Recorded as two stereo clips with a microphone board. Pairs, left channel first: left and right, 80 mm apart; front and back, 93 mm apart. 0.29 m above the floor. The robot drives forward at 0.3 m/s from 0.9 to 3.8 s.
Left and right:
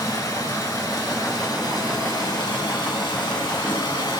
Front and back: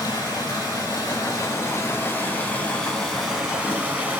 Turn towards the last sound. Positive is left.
turn(degrees=105)